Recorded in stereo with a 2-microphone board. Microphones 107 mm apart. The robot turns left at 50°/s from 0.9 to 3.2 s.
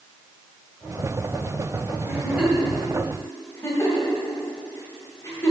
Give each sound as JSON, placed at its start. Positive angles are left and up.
{"t": 2.0, "sound": "a giggle", "side_deg": -25, "distance_m": 2.5}